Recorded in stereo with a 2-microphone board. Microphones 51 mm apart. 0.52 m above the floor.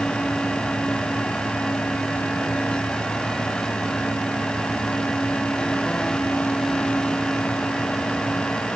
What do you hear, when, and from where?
Only background noise.